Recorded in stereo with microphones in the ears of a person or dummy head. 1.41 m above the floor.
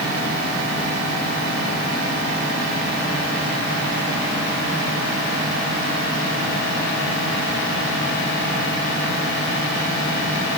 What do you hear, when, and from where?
Only background noise.